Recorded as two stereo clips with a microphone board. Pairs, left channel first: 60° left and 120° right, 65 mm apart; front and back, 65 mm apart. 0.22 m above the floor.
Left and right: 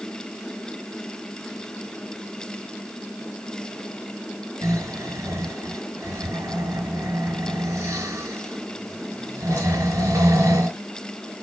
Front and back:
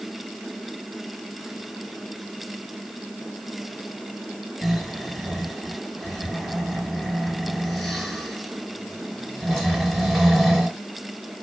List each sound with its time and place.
4.6 s snoring: 90° right, 2.5 m